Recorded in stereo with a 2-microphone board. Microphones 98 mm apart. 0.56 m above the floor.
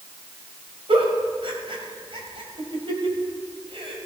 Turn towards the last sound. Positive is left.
turn(degrees=-65)  # may be behind; listen again after turning